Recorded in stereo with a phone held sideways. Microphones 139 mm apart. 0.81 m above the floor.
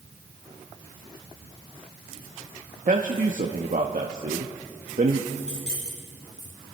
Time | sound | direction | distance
2.9 | a man speaking | 60° right (ahead or behind) | 0.8 m
5.3 | keys jangling | 5° left (ahead or behind) | 4.5 m